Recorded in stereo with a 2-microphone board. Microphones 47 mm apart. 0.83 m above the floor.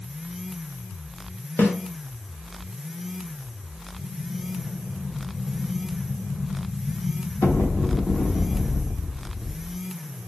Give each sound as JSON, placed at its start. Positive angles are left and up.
{"t": 1.6, "sound": "a snare drum", "side_deg": 45, "distance_m": 0.7}
{"t": 4.0, "sound": "an explosion", "side_deg": 55, "distance_m": 0.6}